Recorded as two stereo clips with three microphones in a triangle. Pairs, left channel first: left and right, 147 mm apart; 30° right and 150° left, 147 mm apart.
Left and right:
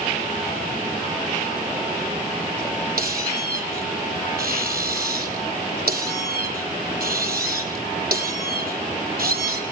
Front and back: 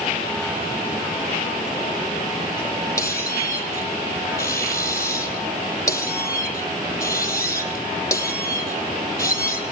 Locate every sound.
3.0 s a squeak: 100° right, 3 m